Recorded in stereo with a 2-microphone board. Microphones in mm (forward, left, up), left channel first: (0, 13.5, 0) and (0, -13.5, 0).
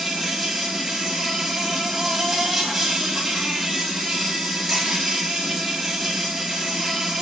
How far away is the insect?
About 2.5 m.